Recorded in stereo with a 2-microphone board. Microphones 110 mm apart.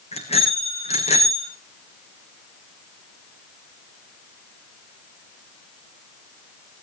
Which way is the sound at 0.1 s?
75° left (ahead or behind).